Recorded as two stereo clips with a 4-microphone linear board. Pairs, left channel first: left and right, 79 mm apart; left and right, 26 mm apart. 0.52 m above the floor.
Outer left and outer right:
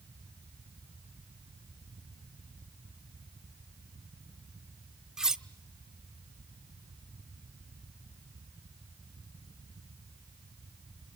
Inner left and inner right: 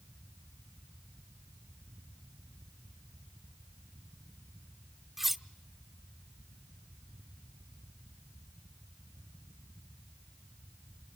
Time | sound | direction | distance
5.2 | cutlery clinking | 5° right (ahead or behind) | 0.6 m